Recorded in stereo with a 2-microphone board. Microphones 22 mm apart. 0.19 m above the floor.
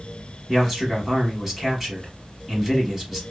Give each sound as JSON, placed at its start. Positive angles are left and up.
{"t": 0.5, "sound": "a man speaking", "side_deg": -10, "distance_m": 1.1}